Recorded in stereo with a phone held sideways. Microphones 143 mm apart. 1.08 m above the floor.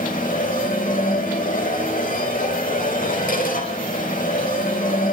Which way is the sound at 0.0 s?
70° left (ahead or behind).